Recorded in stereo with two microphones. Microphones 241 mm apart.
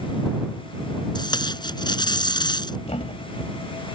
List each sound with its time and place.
1.1 s tape being pulled: 20° left (ahead or behind)
2.9 s a thud: 25° left (ahead or behind)